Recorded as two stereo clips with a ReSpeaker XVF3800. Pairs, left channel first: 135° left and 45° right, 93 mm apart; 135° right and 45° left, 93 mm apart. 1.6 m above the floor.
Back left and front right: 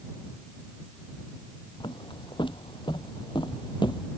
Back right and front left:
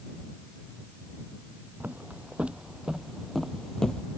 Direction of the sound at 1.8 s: 115° left.